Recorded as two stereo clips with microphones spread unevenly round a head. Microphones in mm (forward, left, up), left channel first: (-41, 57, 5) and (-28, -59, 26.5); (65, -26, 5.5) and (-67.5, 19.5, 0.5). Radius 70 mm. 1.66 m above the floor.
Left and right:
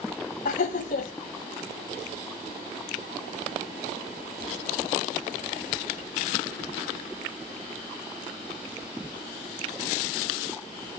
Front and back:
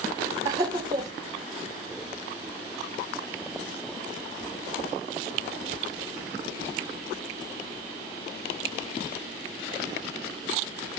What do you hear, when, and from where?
0.5 s laughter: 95° left, 1.0 m